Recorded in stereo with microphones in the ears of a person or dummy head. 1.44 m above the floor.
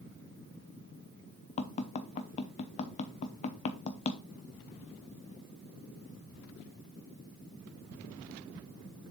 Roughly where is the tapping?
Left.